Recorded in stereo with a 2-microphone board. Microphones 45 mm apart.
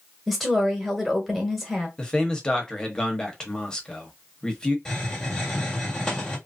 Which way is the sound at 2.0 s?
15° left (ahead or behind).